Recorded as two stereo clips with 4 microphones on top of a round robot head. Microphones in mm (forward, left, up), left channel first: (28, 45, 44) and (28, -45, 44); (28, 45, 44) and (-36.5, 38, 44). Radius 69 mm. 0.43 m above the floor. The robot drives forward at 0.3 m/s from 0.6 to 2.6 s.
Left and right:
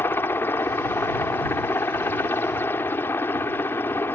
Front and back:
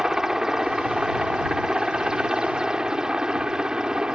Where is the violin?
I don't hear a violin.